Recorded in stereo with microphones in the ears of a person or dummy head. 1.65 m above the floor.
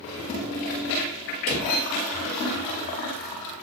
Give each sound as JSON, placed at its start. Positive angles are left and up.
{"t": 1.5, "sound": "a drawer", "side_deg": 40, "distance_m": 1.0}